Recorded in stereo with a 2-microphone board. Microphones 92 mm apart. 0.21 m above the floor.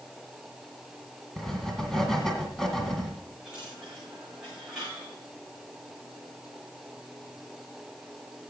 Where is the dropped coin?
10° right (ahead or behind), 7.5 m.